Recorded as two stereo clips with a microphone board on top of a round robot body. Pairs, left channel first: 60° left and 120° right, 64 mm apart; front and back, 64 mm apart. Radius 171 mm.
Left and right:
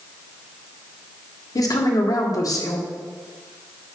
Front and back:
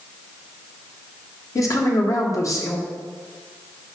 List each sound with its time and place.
1.6 s a woman speaking: 35° left, 1.8 m